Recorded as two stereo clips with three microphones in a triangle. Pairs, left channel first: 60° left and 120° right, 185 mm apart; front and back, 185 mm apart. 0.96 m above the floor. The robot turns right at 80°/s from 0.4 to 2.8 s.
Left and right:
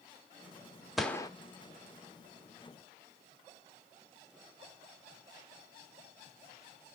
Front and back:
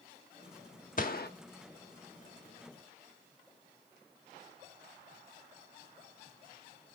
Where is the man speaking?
No man speaking in this recording.